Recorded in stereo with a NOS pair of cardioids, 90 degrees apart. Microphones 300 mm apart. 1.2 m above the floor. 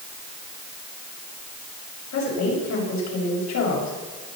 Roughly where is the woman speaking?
Left.